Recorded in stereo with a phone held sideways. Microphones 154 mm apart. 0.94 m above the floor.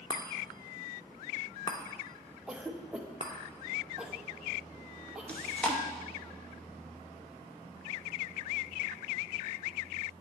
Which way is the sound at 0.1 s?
35° left (ahead or behind).